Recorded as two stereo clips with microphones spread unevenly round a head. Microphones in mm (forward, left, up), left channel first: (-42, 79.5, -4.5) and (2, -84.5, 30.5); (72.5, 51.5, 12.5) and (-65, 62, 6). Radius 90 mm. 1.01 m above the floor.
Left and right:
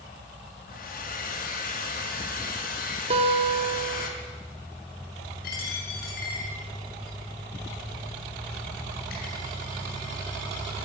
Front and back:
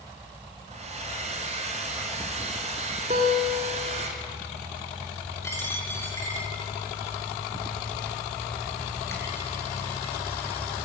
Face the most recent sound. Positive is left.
turn(degrees=65)